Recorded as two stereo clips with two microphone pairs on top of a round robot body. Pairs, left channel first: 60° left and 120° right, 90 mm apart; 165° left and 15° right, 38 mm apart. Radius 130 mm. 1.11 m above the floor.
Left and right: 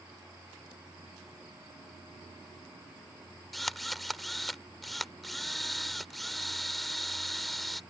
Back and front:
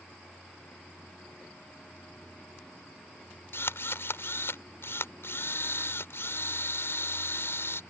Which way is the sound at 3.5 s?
145° left.